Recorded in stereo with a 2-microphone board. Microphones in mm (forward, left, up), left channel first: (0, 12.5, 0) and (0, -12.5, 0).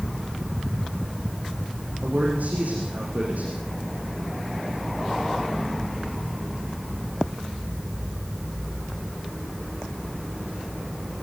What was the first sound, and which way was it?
A man speaking, 70° right (ahead or behind).